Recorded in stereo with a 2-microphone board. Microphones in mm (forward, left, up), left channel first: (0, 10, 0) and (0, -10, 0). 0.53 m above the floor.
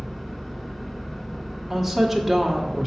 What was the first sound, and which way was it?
An engine running, 15° left (ahead or behind).